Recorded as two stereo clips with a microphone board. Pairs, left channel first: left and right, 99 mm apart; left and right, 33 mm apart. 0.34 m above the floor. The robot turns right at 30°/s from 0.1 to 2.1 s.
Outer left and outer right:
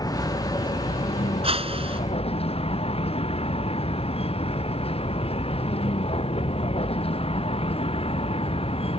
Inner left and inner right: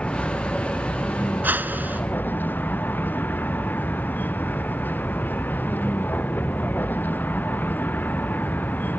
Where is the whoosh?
75° right (ahead or behind); by 2.0 s 70° right (ahead or behind).